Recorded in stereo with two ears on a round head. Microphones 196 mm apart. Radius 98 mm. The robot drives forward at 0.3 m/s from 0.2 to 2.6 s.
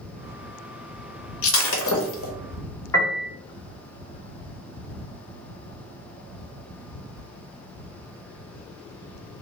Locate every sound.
1.4 s breaking glass: 65° left (ahead or behind), 0.8 m; by 2.3 s 70° left (ahead or behind), 0.8 m
2.9 s a piano: 15° left (ahead or behind), 1.3 m